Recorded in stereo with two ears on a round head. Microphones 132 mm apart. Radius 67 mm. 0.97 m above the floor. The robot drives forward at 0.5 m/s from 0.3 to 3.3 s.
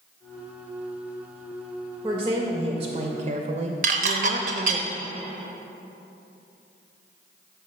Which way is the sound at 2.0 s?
25° right (ahead or behind).